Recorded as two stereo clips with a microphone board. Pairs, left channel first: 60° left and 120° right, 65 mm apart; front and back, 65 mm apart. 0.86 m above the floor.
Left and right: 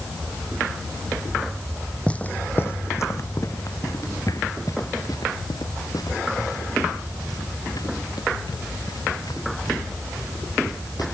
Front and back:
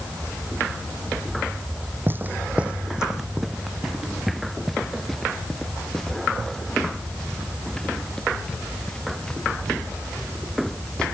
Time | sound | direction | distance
2.1 | footsteps | 130° left | ?